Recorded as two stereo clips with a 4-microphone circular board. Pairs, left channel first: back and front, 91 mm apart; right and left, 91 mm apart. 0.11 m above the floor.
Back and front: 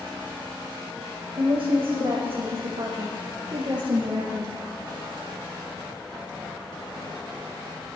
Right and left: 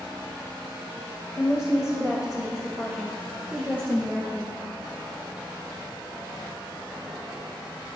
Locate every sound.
1.4 s a woman speaking: 20° left, 4.5 m